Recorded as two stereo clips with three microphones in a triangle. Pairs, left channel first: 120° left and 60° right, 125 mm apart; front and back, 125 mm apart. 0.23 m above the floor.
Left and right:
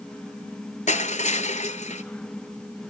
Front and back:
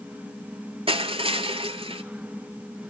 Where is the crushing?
140° left, 1.1 m.